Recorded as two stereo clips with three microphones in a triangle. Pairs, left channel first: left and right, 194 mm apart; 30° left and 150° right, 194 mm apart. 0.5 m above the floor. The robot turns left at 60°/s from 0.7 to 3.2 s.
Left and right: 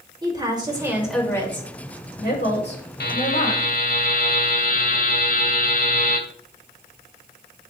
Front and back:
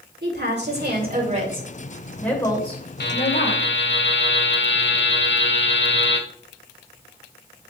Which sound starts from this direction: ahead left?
A buzzer, at 3.0 s.